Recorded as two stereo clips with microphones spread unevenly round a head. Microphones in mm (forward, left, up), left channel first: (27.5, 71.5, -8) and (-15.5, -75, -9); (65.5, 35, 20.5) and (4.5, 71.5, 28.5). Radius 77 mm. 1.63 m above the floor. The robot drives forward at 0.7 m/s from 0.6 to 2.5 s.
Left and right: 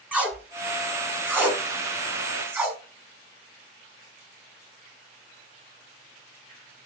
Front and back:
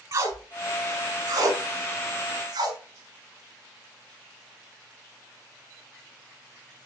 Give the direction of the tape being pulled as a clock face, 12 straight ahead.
6 o'clock.